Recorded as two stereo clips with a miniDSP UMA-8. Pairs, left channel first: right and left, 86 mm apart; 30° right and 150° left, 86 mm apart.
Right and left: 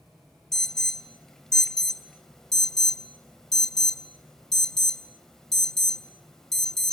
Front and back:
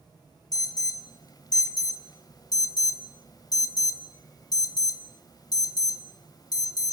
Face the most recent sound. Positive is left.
turn(degrees=-5)